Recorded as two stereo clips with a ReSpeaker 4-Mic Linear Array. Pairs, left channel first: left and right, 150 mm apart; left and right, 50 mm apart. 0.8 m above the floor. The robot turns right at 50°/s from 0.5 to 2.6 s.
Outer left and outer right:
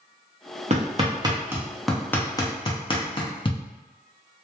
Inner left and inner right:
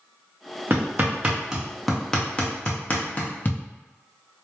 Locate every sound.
0.7 s hammering: 50° right (ahead or behind), 0.6 m; by 3.6 s 35° left (ahead or behind), 0.6 m